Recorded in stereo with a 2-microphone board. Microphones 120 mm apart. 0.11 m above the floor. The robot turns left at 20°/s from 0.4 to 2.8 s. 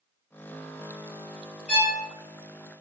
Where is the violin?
15° left (ahead or behind), 1.9 m; by 2.0 s 10° left (ahead or behind), 1.9 m.